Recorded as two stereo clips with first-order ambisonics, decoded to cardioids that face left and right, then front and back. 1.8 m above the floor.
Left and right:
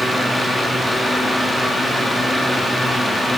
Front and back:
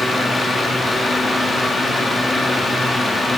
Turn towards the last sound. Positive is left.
No sound to turn to.